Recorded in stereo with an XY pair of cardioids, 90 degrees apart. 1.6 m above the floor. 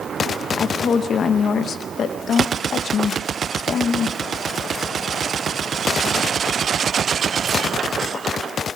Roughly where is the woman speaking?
Ahead left.